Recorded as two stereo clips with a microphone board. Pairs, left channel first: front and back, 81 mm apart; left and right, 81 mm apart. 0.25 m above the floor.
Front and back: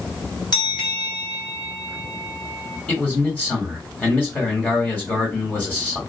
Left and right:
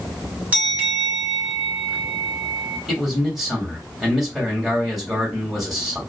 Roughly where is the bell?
Ahead.